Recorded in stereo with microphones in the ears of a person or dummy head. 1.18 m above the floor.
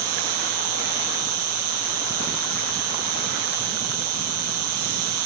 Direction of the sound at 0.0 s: 50° right (ahead or behind).